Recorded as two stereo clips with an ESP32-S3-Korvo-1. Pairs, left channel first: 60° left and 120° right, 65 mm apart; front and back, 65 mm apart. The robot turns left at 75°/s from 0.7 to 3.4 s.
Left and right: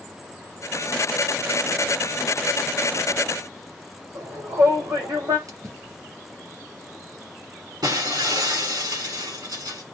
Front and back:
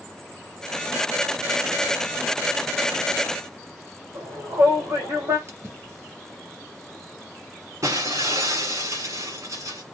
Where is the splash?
140° right, 3.5 m.